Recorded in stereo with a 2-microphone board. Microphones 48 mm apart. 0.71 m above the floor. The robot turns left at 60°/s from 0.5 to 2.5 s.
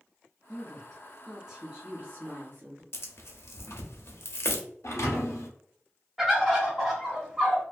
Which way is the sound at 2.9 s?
55° left (ahead or behind).